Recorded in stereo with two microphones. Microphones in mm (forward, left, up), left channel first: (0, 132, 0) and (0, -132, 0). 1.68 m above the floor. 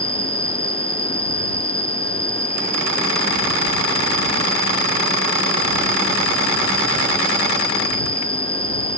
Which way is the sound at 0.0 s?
10° right (ahead or behind).